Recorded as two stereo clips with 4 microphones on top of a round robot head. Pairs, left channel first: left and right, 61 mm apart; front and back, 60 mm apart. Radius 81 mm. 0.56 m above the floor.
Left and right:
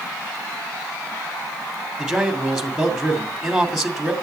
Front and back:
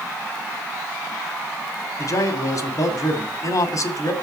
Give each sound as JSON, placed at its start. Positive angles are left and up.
{"t": 2.0, "sound": "a man speaking", "azimuth_deg": -5, "distance_m": 2.5}